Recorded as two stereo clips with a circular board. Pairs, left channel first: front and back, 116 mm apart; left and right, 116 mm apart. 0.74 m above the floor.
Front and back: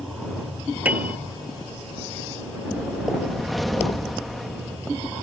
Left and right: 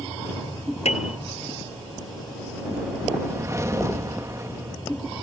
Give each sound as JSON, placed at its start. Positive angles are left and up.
{"t": 0.8, "sound": "a piano", "azimuth_deg": 105}
{"t": 2.6, "sound": "a whoosh", "azimuth_deg": -90}